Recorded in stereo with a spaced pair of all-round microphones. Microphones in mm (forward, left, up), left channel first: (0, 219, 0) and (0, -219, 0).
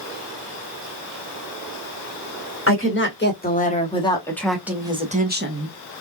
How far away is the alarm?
I don't hear an alarm.